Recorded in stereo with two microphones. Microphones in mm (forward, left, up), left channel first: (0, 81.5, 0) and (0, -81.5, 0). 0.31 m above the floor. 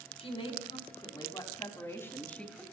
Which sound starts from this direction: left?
A woman speaking, at 0.2 s.